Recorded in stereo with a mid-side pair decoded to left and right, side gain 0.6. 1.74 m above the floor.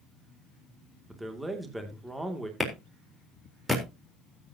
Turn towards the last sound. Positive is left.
turn(degrees=-5)